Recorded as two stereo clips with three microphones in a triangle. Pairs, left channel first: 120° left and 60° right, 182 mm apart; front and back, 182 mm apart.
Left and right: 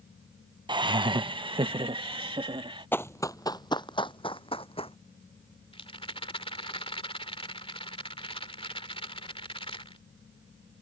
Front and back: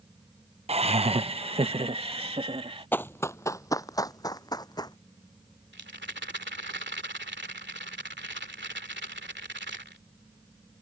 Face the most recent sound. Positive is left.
turn(degrees=180)